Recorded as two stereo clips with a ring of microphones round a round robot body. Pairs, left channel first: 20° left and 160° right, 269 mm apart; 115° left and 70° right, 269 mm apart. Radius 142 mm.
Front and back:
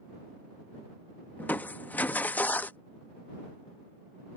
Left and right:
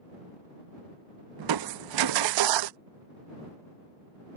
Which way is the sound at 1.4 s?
60° right.